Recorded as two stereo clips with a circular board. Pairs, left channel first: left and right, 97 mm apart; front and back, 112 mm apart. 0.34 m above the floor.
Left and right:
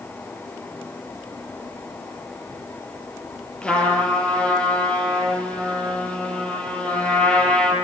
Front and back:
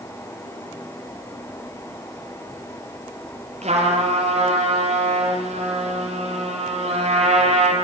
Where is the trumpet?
170° left, 6.5 m.